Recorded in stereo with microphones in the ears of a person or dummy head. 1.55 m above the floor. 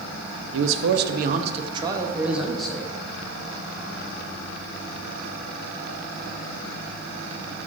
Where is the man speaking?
80° right, 0.8 m; by 2.9 s 10° left (ahead or behind), 1.1 m.